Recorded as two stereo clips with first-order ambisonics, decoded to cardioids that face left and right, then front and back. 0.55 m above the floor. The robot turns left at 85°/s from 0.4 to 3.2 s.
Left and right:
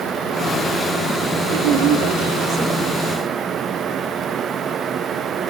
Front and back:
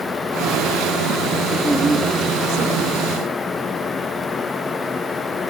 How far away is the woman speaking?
About 1.7 m.